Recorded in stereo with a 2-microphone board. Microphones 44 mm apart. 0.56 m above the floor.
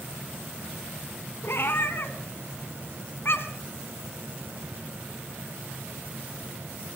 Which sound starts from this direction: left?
A cat meowing, at 1.4 s.